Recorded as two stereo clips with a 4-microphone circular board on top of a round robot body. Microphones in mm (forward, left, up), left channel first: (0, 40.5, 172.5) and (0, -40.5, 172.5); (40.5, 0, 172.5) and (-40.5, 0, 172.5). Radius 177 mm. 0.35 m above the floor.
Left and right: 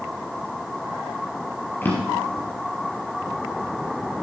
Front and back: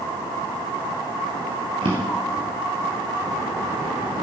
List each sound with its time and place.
1.8 s a drawer: 155° left, 4 m